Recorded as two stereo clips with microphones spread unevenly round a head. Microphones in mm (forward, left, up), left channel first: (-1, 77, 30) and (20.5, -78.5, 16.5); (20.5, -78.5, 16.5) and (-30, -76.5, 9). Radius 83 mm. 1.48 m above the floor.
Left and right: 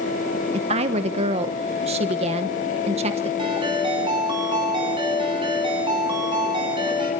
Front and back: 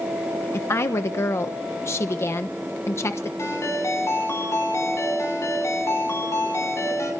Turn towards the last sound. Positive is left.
turn(degrees=-20)